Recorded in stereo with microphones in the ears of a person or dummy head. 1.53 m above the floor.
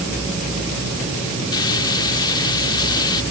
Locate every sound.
1.5 s frying: 25° left (ahead or behind)